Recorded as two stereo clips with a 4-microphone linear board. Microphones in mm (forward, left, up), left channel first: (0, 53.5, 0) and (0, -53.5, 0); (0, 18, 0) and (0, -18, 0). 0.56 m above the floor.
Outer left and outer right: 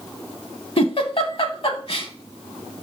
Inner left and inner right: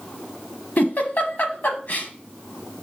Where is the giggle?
60° left (ahead or behind), 0.7 m.